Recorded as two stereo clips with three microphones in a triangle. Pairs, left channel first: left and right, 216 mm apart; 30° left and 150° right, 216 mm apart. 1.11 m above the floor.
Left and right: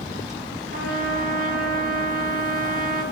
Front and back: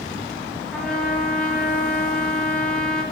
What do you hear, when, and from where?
0.7 s a trumpet: 55° right, 0.8 m